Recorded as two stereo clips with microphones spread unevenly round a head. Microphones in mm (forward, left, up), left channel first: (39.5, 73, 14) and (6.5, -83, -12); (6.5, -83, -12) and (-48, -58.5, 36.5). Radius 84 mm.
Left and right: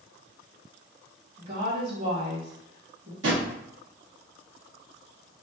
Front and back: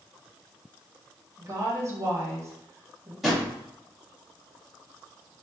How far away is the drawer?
About 1.4 m.